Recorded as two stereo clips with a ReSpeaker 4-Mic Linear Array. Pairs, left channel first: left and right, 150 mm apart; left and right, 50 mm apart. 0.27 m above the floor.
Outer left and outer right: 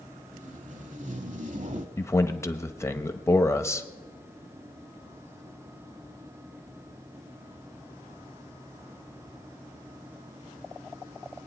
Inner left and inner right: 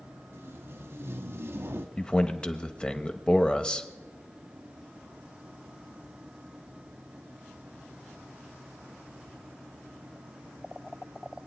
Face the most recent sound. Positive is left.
turn(degrees=20)  # may be behind; listen again after turning